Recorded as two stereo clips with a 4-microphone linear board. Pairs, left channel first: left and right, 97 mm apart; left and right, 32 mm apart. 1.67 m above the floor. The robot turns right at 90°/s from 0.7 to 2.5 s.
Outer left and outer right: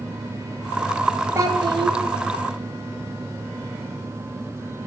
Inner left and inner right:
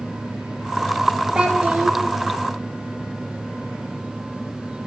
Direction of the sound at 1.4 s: 145° right.